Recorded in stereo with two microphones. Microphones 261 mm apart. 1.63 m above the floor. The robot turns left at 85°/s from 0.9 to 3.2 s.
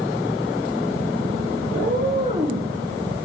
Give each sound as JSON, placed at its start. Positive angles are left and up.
{"t": 1.7, "sound": "a cat meowing", "azimuth_deg": -105, "distance_m": 3.5}